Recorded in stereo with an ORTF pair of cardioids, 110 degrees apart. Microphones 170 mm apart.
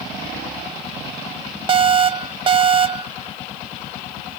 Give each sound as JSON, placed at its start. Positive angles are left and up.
{"t": 1.7, "sound": "an alarm", "azimuth_deg": -30}